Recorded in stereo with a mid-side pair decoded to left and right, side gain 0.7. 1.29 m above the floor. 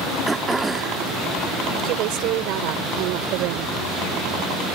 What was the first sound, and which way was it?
Throat clearing, 15° right.